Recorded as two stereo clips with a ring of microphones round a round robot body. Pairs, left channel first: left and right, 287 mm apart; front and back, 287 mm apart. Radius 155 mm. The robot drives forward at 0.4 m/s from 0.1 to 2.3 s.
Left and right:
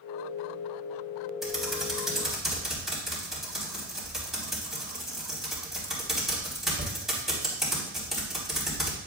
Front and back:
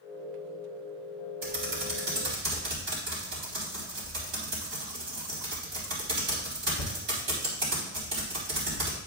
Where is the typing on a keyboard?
Straight behind, 4 m.